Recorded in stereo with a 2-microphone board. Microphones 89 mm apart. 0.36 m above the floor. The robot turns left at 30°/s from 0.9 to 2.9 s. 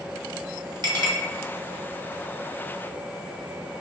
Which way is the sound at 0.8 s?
60° right (ahead or behind).